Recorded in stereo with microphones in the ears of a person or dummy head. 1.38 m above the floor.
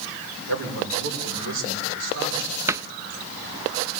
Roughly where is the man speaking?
Right.